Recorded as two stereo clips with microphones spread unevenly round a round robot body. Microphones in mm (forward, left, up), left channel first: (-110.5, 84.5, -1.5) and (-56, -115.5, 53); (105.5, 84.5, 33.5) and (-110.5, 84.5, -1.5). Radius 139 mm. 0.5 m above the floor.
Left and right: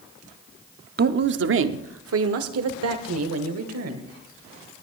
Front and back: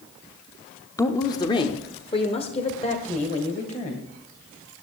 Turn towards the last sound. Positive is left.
turn(degrees=-70)